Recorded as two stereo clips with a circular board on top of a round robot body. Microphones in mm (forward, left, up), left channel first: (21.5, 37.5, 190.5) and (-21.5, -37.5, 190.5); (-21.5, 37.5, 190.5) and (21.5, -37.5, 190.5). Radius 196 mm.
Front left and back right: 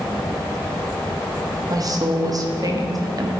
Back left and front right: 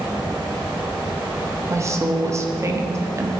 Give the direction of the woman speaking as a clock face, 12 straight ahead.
3 o'clock.